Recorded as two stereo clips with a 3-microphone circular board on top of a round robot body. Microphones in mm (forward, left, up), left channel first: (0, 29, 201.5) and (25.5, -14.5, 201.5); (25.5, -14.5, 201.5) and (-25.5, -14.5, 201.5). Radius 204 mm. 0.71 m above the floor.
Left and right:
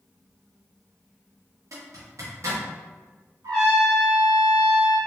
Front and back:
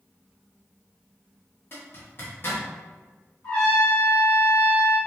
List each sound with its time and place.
1.7 s a zipper: 45° right, 0.9 m
3.4 s a trumpet: 70° right, 1.7 m